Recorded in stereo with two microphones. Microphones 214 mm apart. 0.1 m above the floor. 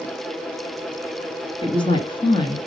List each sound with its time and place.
1.6 s a woman speaking: 25° left (ahead or behind), 1.4 m